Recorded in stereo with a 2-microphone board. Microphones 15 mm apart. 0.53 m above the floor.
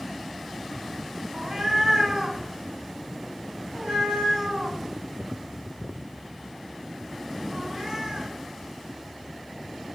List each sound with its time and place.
1.3 s a cat meowing: 60° right (ahead or behind), 1.8 m